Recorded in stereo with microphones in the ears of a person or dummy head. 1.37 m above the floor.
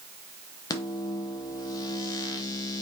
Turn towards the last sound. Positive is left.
turn(degrees=20)  # may be behind; listen again after turning